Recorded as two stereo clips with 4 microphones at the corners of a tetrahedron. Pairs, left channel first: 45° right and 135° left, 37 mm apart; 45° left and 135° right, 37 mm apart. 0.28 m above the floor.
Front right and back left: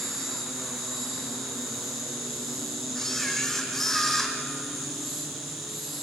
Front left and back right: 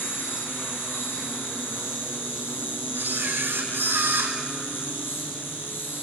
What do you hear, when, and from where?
0.0 s an insect: 45° left, 6.5 m
3.0 s a camera shutter: 125° right, 4.5 m